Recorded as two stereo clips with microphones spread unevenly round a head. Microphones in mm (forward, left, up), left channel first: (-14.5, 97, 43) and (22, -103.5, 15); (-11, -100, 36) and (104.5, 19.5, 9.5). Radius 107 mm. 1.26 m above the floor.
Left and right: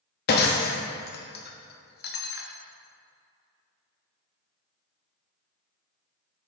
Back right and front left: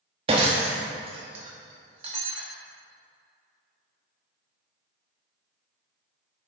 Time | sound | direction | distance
0.3 | breaking glass | 110° left | 0.9 m